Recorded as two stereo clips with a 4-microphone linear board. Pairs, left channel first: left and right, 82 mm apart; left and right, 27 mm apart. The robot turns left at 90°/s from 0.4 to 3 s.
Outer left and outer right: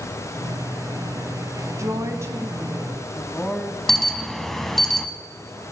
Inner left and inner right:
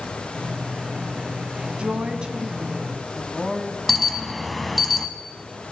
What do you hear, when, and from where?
1.8 s a woman speaking: 80° right, 1.3 m; by 3.8 s 170° left, 1.3 m
3.9 s an alarm: 5° left (ahead or behind), 0.9 m